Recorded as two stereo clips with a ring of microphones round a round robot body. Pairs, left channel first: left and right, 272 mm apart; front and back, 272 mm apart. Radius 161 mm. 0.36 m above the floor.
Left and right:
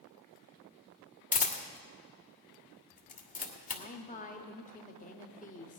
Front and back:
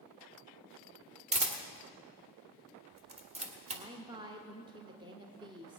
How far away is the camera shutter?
About 1.4 m.